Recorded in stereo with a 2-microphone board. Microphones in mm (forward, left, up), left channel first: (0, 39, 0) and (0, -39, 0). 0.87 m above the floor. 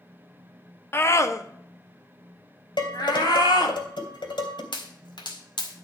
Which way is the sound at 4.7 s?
80° left.